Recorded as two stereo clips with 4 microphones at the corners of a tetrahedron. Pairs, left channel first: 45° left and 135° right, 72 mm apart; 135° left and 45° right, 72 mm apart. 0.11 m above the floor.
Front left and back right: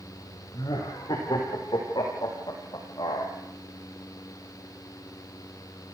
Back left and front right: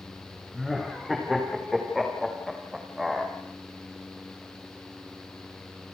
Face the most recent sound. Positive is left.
turn(degrees=40)